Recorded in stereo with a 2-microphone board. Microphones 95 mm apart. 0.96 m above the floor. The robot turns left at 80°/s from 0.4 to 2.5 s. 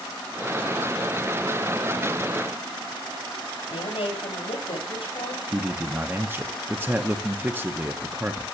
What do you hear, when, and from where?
3.7 s a woman speaking: 85° left, 5 m
5.5 s a man speaking: 25° right (ahead or behind), 0.6 m